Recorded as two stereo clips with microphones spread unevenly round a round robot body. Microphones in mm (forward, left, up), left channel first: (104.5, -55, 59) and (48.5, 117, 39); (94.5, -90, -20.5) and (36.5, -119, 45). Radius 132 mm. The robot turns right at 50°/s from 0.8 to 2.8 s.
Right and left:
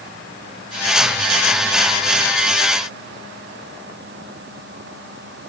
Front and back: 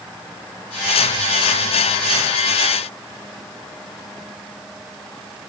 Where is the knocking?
No knocking in this recording.